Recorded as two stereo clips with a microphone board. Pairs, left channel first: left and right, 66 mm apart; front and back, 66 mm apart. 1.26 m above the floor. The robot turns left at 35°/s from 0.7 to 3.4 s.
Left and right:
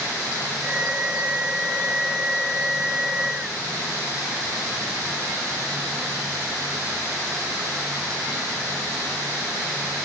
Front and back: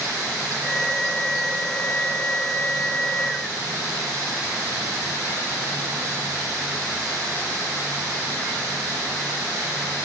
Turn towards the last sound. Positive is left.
No sound to turn to.